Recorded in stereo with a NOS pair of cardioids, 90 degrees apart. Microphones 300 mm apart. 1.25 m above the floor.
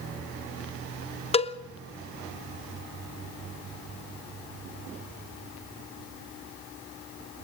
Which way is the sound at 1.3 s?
20° left.